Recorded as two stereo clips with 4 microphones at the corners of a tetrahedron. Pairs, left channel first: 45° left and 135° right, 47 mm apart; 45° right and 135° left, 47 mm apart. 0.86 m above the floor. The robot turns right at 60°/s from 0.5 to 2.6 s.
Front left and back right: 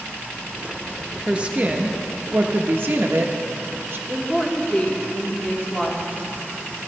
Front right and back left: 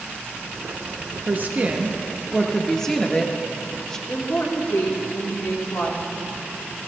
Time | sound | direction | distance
1.3 | a woman speaking | 160° left | 1.0 m
4.1 | a woman speaking | 25° right | 2.5 m